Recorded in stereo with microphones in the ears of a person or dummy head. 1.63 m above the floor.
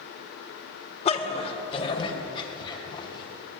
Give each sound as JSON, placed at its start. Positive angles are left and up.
{"t": 1.1, "sound": "a dog barking", "side_deg": 35, "distance_m": 2.0}